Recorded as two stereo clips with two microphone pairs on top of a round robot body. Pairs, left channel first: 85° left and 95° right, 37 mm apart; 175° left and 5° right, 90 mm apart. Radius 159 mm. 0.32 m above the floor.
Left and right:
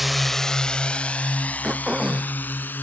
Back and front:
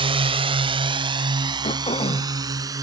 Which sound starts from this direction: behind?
Throat clearing, at 1.6 s.